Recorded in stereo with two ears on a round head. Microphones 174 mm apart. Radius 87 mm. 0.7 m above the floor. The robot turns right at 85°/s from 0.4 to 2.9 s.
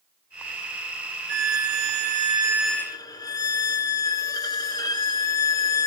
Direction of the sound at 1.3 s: 120° right.